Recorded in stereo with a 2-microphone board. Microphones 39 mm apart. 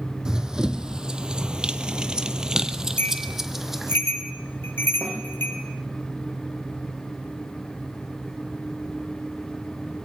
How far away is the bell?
About 6.5 m.